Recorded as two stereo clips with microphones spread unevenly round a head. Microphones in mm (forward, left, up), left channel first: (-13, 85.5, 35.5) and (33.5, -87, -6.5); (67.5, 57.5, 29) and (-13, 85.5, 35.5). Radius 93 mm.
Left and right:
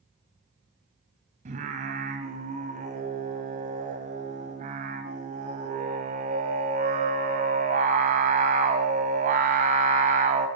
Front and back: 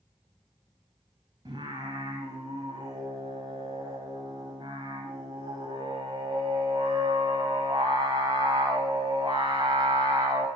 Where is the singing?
130° right, 2 m.